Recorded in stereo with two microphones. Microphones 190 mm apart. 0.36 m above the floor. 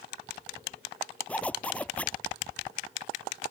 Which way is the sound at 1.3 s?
5° left (ahead or behind).